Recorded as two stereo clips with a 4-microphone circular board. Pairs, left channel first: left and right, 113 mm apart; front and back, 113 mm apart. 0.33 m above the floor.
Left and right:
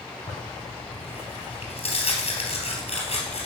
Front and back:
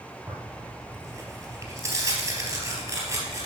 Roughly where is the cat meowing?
I don't hear a cat meowing.